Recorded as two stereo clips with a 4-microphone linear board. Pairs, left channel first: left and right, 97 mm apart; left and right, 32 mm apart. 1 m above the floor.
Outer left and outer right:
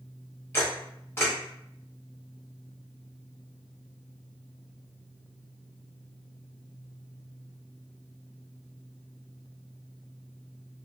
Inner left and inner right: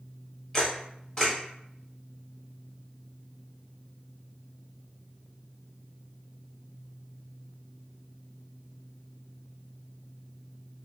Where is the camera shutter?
25° left (ahead or behind), 1.1 m.